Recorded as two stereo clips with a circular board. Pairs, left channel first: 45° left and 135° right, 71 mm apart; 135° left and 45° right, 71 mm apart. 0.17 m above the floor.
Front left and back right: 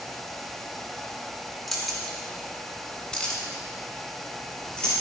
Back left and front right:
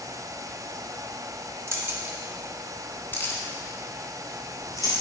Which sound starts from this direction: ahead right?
Keys jangling, at 1.7 s.